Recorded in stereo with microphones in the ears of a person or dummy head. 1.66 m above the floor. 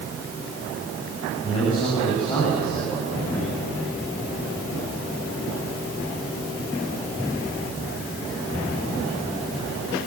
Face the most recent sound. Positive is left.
turn(degrees=20)  # may be behind; listen again after turning